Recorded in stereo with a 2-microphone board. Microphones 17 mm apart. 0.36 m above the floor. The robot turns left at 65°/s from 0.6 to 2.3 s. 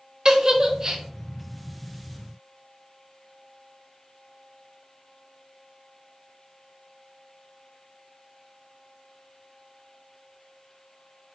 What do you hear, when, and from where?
0.2 s a giggle: 40° right (ahead or behind), 0.6 m; by 1.0 s 25° right (ahead or behind), 0.6 m